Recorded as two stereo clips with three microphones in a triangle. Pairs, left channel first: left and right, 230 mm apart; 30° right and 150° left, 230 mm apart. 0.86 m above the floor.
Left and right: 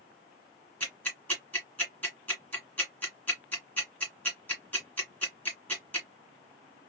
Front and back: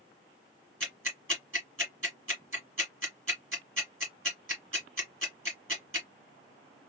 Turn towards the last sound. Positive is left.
turn(degrees=170)